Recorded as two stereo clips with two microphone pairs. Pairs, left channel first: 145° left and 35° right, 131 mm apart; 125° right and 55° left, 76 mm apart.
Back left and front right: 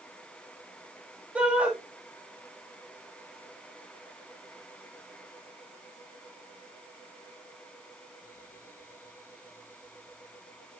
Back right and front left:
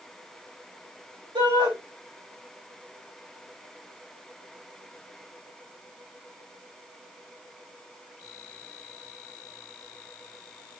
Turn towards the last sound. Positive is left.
turn(degrees=45)